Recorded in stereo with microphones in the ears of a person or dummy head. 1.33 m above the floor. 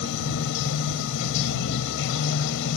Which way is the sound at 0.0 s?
65° left (ahead or behind).